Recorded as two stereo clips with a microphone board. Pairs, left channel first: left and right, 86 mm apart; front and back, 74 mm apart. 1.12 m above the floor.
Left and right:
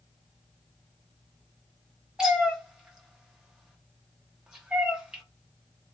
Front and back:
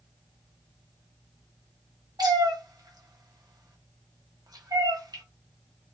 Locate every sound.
2.2 s a cat meowing: 170° right, 0.7 m